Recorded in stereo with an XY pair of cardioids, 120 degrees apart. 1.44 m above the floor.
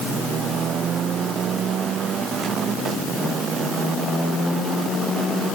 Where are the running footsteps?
No running footsteps in this recording.